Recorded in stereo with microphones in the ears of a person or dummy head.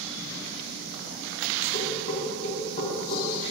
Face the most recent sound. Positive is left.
turn(degrees=40)  # may be behind; listen again after turning